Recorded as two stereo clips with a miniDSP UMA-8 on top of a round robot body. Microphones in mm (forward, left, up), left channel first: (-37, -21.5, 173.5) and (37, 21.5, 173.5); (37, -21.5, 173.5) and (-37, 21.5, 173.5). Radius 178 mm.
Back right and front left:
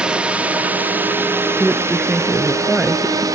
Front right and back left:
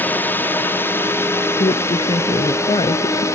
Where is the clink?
I don't hear a clink.